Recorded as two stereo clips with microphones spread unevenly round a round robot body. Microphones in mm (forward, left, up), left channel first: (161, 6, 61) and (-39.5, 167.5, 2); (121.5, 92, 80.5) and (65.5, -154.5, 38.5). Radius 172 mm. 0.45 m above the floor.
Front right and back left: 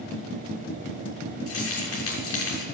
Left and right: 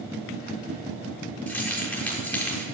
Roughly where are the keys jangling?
Ahead.